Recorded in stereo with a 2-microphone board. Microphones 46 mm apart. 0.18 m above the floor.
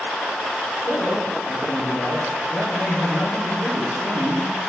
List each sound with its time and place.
0.8 s a man speaking: 70° left (ahead or behind), 7 m